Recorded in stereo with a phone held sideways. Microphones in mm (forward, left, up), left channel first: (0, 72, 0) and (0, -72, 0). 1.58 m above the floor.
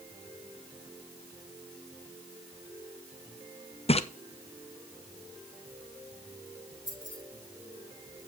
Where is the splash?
45° left (ahead or behind), 0.7 m.